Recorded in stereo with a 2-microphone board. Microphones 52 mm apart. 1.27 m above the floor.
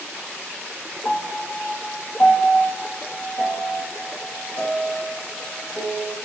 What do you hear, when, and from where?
1.1 s a piano: 35° left (ahead or behind), 1.3 m